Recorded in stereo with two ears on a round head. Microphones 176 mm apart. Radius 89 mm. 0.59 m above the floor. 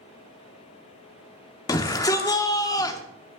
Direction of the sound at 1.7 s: 20° left (ahead or behind).